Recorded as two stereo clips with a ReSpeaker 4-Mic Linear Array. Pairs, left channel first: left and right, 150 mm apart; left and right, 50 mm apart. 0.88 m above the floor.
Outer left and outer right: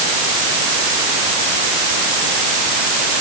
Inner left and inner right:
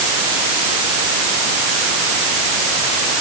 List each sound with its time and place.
Only background noise.